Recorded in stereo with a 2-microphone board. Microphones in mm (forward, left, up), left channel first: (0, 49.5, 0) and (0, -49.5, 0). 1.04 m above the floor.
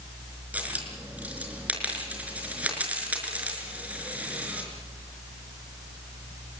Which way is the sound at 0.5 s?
15° right (ahead or behind).